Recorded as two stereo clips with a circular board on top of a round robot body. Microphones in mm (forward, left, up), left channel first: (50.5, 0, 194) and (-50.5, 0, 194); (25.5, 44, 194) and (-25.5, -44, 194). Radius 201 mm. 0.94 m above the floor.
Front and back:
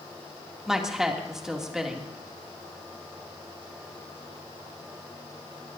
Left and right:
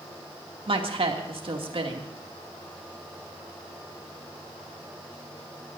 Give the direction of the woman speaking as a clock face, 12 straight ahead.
3 o'clock.